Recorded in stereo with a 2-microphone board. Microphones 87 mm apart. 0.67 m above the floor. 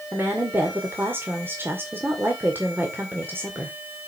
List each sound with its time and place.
0.1 s a woman speaking: 25° right (ahead or behind), 2 m